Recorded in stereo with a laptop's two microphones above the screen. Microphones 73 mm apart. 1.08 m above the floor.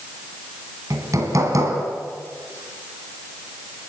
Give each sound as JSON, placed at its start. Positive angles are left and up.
{"t": 0.9, "sound": "hammering", "side_deg": -50, "distance_m": 3.0}